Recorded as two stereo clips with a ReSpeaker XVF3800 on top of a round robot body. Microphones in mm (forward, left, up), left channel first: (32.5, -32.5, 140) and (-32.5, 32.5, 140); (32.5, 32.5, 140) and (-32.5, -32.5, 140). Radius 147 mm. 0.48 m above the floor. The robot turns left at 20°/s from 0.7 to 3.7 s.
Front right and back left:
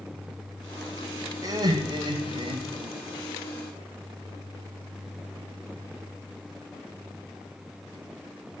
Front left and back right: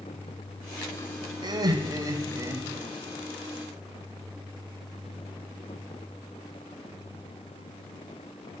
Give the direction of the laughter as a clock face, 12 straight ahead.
6 o'clock.